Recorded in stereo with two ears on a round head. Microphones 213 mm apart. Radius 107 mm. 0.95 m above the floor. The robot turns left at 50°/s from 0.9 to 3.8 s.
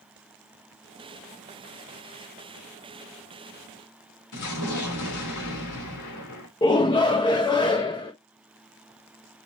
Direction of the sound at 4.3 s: 85° left.